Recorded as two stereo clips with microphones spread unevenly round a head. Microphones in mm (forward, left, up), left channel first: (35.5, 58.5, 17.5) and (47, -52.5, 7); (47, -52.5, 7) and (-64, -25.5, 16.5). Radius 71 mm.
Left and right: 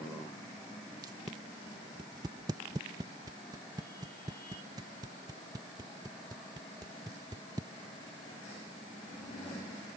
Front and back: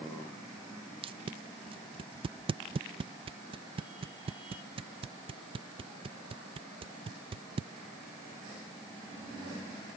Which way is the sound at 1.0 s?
150° right.